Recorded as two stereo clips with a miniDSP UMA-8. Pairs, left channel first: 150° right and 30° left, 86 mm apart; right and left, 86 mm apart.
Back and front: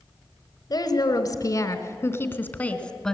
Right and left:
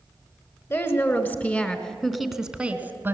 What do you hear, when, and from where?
0.7 s a woman speaking: 140° right, 1.9 m; by 3.1 s 130° left, 1.4 m